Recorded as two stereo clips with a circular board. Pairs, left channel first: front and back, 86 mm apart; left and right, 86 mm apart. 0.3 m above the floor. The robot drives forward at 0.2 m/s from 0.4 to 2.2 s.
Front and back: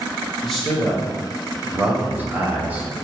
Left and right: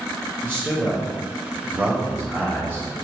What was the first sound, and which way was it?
A man speaking, 85° right.